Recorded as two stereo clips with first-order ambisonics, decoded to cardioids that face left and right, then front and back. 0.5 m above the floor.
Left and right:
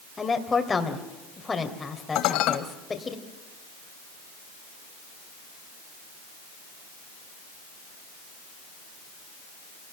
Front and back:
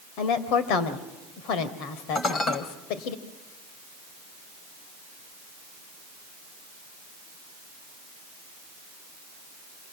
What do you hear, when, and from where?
0.2 s a woman speaking: 15° left, 2.5 m
2.1 s dishes clattering: 65° left, 1.9 m